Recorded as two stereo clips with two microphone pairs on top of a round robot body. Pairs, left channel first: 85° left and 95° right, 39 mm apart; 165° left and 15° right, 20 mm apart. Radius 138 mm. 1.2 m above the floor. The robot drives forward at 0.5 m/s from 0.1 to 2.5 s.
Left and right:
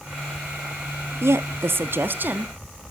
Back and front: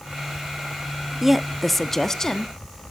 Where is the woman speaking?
95° right, 0.7 m; by 2.5 s 135° right, 1.0 m.